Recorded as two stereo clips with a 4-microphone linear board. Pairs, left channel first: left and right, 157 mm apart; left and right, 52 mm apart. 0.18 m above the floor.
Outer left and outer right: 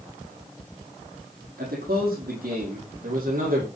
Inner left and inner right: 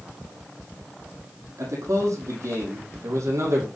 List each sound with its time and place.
1.6 s a man speaking: 75° right (ahead or behind), 6 m; by 3.7 s 65° right (ahead or behind), 6.5 m